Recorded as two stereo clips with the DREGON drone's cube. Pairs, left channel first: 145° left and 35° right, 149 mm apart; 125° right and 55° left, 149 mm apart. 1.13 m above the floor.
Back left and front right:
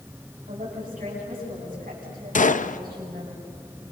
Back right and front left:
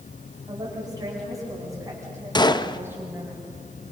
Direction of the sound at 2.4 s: 175° left.